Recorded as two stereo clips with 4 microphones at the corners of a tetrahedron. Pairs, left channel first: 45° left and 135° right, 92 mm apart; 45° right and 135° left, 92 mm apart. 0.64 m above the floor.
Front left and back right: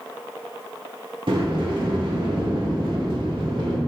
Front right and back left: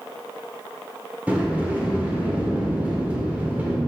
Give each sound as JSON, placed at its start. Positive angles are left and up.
{"t": 1.3, "sound": "a sliding door", "azimuth_deg": -150, "distance_m": 1.4}